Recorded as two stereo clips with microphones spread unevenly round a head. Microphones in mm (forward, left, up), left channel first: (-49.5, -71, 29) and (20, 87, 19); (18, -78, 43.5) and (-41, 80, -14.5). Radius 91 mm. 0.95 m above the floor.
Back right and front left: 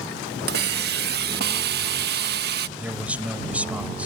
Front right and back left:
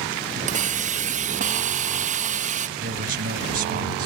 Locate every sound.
0.5 s a hiss: 80° left
2.8 s a man speaking: 150° left